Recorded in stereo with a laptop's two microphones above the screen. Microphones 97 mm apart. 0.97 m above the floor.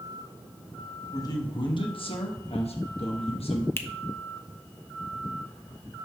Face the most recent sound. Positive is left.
turn(degrees=25)  # may be behind; listen again after turning